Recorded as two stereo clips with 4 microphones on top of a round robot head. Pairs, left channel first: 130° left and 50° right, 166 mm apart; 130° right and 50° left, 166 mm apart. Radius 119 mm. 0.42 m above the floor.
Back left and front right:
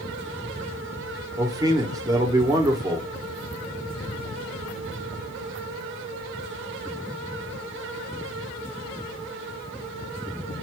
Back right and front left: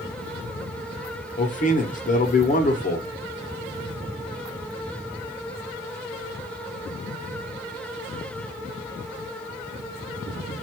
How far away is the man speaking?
About 1.2 m.